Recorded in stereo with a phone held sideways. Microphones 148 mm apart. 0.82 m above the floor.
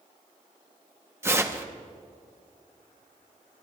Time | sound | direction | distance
1.2 | tearing paper | 20° right (ahead or behind) | 0.9 m